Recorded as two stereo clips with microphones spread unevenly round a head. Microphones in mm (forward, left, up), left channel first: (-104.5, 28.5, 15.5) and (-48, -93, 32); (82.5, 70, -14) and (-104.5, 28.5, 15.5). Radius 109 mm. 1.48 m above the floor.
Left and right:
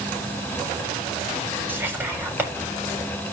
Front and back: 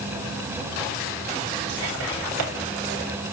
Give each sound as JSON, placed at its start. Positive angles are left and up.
{"t": 1.7, "sound": "whispering", "azimuth_deg": -140, "distance_m": 7.5}